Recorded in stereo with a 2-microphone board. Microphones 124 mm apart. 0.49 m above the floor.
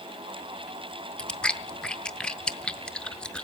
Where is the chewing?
5° left (ahead or behind), 0.5 m.